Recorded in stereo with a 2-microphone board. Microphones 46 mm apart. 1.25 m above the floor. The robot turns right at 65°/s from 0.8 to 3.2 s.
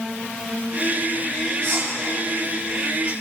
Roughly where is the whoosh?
Right.